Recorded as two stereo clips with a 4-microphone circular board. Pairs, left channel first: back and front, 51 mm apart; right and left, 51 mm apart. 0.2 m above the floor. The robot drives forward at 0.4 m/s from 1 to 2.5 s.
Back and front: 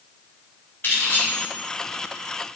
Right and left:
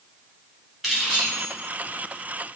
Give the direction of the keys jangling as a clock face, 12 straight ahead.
6 o'clock.